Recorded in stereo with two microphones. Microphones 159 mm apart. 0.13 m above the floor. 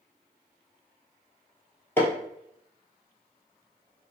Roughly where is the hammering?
Centre.